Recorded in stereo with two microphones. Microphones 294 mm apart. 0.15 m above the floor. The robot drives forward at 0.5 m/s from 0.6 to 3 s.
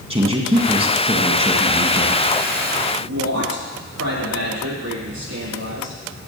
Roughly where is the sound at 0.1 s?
Right.